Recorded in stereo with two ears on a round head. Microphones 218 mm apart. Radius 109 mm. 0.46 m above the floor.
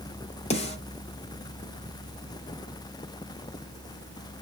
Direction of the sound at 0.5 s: 25° left (ahead or behind).